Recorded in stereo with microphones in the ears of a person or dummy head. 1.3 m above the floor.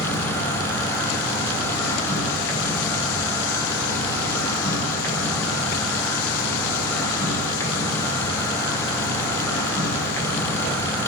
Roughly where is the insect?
Centre.